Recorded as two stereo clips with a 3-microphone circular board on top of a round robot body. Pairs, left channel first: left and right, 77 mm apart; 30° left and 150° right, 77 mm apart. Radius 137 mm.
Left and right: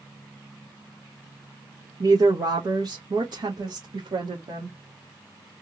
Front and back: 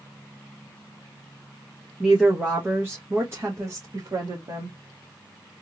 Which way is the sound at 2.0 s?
65° right.